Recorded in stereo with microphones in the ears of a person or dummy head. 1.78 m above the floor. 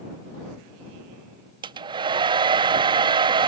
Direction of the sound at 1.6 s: 30° right (ahead or behind).